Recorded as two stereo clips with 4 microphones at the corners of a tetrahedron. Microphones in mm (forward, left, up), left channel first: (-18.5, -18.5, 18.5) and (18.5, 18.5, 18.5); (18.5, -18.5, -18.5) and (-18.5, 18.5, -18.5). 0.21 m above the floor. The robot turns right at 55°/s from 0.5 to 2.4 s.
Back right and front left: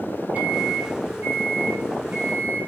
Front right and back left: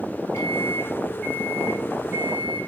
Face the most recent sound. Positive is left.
turn(degrees=85)